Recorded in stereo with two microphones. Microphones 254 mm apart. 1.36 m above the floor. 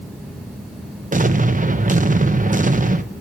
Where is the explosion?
30° right (ahead or behind), 0.7 m.